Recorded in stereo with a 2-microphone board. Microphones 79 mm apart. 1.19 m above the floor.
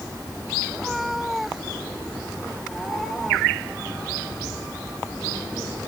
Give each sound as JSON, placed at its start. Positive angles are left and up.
{"t": 0.7, "sound": "a cat meowing", "side_deg": 0}